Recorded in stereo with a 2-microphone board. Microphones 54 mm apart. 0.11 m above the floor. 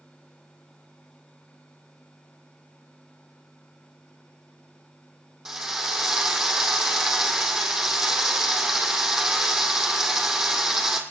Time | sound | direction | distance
5.5 | a drill | 10° right (ahead or behind) | 2.5 m